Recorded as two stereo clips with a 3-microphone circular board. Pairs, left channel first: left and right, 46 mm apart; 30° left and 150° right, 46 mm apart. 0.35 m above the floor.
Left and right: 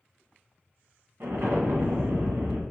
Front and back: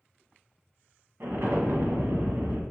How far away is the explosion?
About 0.9 m.